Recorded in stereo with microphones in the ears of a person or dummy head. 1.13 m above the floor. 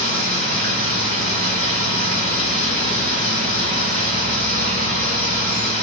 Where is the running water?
50° right (ahead or behind), 1.0 m.